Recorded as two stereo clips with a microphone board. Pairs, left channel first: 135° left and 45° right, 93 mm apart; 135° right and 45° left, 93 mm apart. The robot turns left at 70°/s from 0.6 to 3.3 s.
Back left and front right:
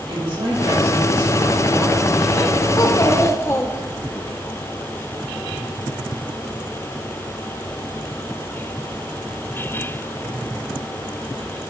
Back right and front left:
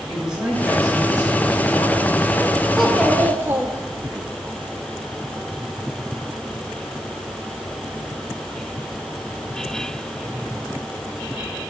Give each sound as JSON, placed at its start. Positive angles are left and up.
{"t": 0.1, "sound": "a woman speaking", "azimuth_deg": -35, "distance_m": 3.5}
{"t": 2.8, "sound": "a child speaking", "azimuth_deg": 130, "distance_m": 0.9}